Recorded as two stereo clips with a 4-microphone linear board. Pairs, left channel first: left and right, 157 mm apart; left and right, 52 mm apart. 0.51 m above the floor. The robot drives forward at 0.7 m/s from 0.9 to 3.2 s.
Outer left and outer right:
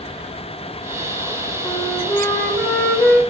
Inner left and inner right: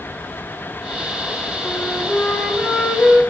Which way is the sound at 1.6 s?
15° left (ahead or behind).